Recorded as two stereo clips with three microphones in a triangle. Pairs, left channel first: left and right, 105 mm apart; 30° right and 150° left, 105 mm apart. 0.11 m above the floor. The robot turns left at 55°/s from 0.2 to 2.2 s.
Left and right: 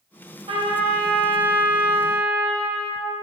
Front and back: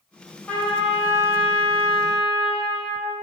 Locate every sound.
0.5 s a trumpet: 105° right, 1.4 m; by 3.2 s 160° left, 1.4 m